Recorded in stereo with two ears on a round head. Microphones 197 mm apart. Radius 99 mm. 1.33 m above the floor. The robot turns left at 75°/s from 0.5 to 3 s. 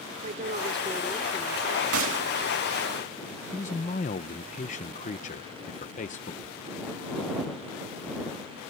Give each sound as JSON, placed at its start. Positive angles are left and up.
{"t": 0.2, "sound": "a woman speaking", "azimuth_deg": -140}
{"t": 1.9, "sound": "a gunshot", "side_deg": -75}
{"t": 3.5, "sound": "a man speaking", "side_deg": 35}
{"t": 6.4, "sound": "a thud", "side_deg": -85}